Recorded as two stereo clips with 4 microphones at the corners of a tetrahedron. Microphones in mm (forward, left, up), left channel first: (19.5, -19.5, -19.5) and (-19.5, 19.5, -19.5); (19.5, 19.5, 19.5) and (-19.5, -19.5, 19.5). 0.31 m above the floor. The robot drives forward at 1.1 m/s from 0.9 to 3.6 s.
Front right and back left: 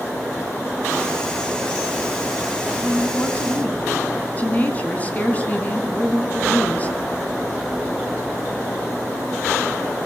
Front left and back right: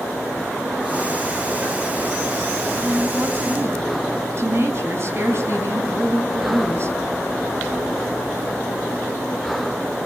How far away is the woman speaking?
About 3.5 m.